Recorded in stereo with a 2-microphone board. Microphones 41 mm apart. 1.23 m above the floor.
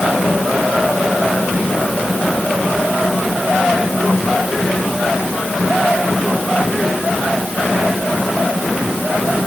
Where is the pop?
No pop in this recording.